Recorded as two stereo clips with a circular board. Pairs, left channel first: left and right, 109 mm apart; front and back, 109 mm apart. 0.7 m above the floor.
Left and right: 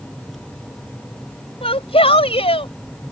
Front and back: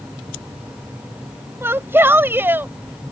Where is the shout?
110° left.